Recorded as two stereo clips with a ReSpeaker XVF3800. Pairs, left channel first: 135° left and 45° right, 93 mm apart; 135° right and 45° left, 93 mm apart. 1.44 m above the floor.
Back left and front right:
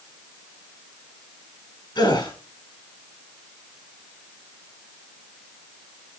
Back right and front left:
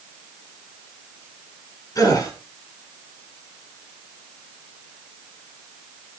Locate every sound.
1.9 s a gasp: 175° left, 8 m